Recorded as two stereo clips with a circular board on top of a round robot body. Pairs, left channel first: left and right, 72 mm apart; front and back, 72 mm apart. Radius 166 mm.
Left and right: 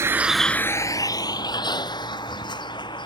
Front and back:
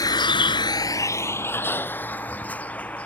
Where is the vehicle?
35° right; by 3.1 s 75° left.